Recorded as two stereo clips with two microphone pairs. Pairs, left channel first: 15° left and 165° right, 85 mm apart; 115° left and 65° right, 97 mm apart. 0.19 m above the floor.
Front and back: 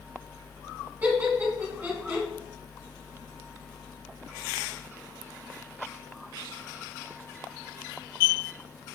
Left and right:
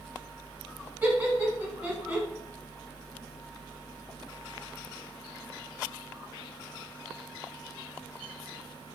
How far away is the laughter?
About 1.3 m.